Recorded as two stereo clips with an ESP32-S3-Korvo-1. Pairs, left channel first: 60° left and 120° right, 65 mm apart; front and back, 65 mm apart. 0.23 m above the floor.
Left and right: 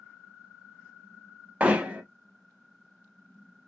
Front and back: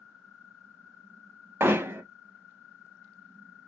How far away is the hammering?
About 0.6 m.